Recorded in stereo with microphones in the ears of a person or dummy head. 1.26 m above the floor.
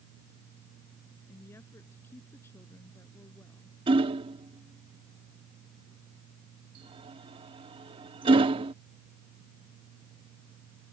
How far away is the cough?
I don't hear a cough.